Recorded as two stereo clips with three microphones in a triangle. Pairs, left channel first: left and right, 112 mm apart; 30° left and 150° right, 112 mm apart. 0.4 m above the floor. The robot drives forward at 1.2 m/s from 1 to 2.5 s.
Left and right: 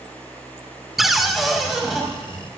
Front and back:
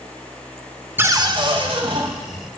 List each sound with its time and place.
1.0 s a cupboard door: 175° right, 0.5 m; by 2.0 s straight behind, 1.5 m